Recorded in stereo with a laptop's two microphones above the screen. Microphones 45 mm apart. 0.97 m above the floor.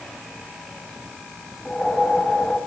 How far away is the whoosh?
About 1.4 m.